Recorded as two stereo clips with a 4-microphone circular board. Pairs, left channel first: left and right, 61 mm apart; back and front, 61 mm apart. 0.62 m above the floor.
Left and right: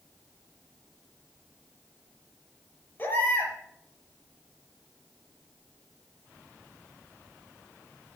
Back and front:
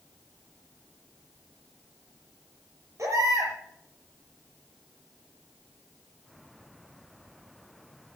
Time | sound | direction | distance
3.0 | a baby crying | 35° left | 5.5 m